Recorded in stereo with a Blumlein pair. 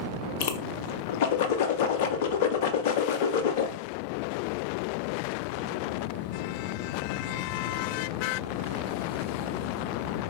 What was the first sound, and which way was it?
A whoosh, 50° left.